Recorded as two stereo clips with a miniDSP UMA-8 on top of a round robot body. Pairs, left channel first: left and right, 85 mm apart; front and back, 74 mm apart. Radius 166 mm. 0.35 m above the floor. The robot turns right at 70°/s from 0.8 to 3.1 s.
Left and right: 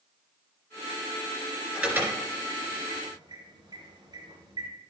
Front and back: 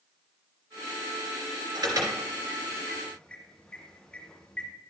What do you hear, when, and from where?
1.8 s an alarm: 170° right, 3.5 m; by 4.7 s 75° right, 3.5 m